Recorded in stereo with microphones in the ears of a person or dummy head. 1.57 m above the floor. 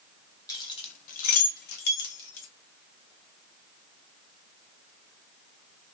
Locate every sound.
0.5 s keys jangling: 25° left (ahead or behind), 0.7 m; by 2.5 s 75° left (ahead or behind), 1.6 m